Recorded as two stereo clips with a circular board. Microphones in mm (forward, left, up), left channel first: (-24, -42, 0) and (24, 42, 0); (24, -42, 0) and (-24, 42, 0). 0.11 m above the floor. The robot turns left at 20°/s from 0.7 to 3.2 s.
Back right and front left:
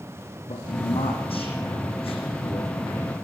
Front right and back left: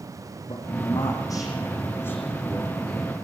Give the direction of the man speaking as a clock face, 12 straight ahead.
3 o'clock.